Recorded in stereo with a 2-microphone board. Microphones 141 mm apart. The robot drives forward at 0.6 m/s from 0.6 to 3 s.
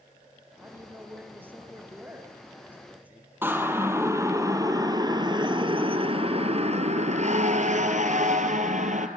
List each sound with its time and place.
0.6 s a man speaking: 15° right (ahead or behind), 3.5 m; by 3.3 s 10° right (ahead or behind), 5 m
3.4 s a siren: 15° right (ahead or behind), 2.5 m; by 9.1 s 60° right (ahead or behind), 2 m